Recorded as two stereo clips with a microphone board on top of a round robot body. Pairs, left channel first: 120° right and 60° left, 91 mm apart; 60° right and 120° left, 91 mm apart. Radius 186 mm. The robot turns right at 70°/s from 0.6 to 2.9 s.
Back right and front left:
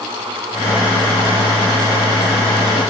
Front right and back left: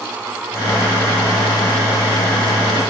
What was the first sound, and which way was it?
Only background noise.